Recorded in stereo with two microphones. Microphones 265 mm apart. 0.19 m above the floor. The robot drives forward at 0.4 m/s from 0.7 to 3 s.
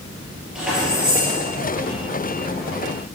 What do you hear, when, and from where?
0.6 s keys jangling: 5° right (ahead or behind), 3 m